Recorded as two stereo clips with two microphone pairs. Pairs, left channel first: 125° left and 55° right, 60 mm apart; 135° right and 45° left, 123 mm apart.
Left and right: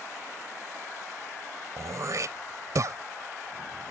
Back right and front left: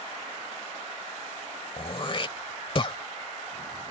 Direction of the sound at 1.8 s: 90° right.